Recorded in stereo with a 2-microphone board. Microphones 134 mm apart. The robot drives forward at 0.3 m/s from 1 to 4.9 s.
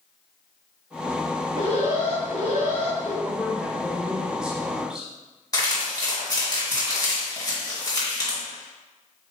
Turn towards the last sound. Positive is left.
turn(degrees=30)  # may be behind; listen again after turning